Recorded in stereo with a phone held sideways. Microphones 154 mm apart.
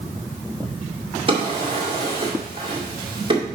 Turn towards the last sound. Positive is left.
turn(degrees=-35)  # may be behind; listen again after turning